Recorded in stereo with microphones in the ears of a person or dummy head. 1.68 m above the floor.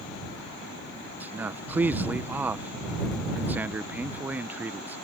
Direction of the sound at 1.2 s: 5° right (ahead or behind).